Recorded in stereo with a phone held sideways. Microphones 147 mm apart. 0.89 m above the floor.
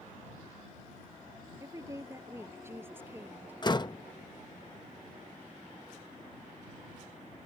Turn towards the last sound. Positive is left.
turn(degrees=30)  # may be behind; listen again after turning